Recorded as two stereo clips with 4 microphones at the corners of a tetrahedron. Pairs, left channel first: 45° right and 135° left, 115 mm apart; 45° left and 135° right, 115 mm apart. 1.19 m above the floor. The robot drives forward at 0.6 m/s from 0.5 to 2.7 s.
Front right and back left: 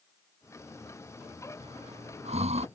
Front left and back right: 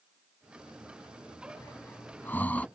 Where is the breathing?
115° left; by 2.7 s 125° left.